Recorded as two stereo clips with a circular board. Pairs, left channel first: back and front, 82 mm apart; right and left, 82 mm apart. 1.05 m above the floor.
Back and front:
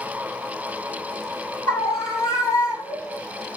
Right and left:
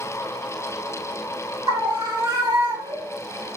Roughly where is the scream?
Behind left.